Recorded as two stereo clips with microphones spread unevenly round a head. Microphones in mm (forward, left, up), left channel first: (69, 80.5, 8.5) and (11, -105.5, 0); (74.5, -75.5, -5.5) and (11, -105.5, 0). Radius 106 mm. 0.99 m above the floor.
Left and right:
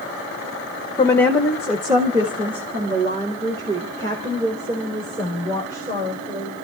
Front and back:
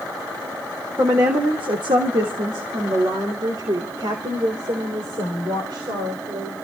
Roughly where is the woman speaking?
Behind left.